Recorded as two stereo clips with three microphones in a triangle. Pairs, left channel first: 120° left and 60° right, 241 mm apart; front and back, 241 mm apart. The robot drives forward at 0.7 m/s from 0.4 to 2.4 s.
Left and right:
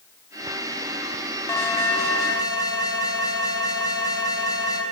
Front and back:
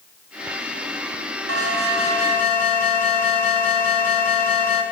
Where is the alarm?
160° right, 5.5 m; by 4.8 s 165° right, 6 m.